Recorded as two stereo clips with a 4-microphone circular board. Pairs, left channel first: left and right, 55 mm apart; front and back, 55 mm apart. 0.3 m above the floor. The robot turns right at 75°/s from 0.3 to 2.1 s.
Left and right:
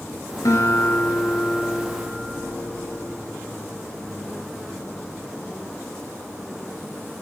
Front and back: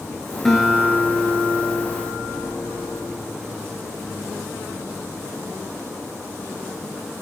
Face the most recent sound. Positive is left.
turn(degrees=-155)